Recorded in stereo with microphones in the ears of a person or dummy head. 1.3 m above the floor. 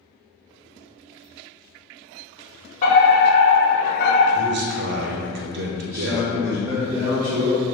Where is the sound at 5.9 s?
20° right (ahead or behind), 1.2 m.